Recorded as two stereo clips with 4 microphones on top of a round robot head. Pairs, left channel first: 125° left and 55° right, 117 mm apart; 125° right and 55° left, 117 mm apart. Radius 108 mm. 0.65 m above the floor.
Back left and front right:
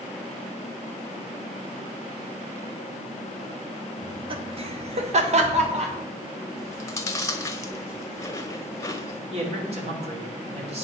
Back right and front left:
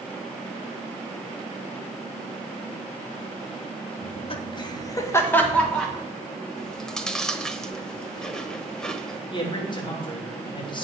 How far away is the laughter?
About 1.6 m.